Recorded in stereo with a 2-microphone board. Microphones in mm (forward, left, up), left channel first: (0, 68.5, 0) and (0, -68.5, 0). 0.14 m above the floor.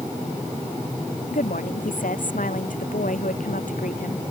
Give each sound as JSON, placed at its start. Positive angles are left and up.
{"t": 1.3, "sound": "a woman speaking", "side_deg": 75}